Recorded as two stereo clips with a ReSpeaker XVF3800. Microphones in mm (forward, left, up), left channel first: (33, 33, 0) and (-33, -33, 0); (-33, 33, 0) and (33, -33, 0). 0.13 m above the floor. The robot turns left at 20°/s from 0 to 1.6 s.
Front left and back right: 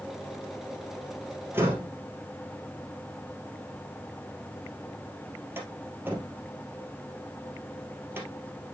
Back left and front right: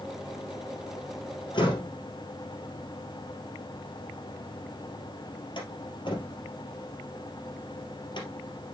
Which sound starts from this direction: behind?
A door slam, at 1.5 s.